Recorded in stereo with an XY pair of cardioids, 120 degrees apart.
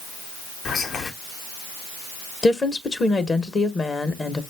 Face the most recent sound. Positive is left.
turn(degrees=30)